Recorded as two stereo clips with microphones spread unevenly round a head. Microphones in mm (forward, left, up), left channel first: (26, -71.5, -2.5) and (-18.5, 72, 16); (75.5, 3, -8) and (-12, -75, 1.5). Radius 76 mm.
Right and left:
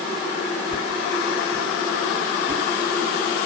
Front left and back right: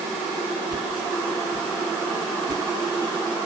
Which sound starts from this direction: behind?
A whoosh, at 0.7 s.